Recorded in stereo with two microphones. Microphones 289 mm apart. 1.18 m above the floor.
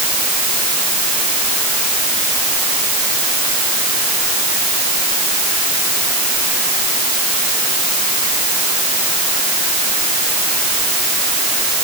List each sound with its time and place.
Only background noise.